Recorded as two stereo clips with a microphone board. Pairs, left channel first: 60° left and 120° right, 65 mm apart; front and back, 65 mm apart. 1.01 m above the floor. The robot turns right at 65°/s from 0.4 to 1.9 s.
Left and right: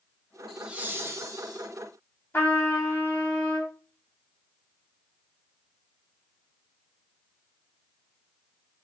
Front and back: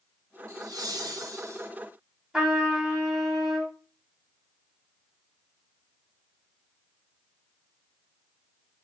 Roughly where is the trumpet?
Left.